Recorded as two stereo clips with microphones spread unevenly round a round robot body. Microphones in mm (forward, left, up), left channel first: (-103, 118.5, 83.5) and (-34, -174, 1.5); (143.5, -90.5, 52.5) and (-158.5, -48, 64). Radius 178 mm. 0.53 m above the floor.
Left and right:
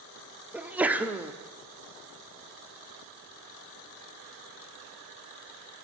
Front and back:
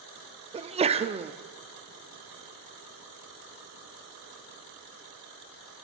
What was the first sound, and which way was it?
A sneeze, 130° right.